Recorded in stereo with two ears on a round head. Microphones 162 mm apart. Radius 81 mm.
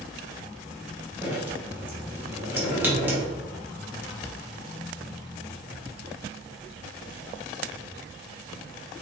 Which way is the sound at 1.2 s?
10° right (ahead or behind).